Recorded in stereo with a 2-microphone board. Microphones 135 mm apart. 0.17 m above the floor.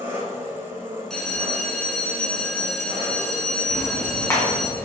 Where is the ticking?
20° left (ahead or behind), 1.6 m.